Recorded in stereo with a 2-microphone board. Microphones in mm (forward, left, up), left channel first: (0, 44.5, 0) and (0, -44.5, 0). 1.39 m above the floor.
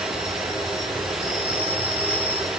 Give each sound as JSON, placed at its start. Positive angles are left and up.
{"t": 0.0, "sound": "an insect", "side_deg": -85, "distance_m": 9.0}